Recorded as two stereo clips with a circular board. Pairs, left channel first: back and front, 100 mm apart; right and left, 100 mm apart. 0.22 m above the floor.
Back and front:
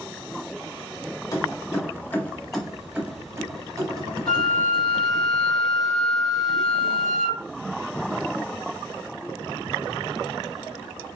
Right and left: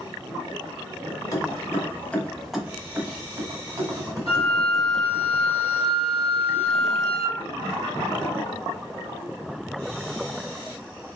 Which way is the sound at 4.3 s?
100° right.